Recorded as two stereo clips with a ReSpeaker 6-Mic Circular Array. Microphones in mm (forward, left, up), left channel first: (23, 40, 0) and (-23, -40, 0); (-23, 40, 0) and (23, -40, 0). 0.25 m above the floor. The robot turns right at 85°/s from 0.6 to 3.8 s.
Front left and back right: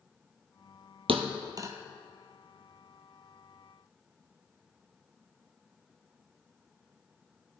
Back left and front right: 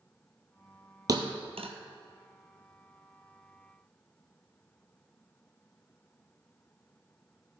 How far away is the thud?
About 0.9 m.